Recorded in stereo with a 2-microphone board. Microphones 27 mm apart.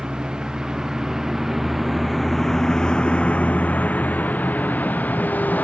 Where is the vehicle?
35° right (ahead or behind); by 5.6 s 85° left.